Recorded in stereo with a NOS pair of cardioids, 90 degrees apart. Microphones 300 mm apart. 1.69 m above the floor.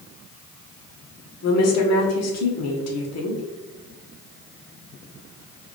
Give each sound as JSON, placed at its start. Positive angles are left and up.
{"t": 1.4, "sound": "a woman speaking", "azimuth_deg": 60, "distance_m": 1.3}